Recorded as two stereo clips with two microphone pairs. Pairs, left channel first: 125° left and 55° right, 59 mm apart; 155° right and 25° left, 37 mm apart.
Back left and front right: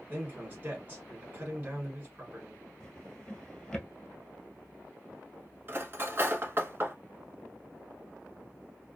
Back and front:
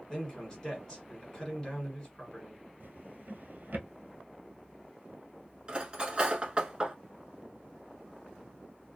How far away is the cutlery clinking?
About 1.0 m.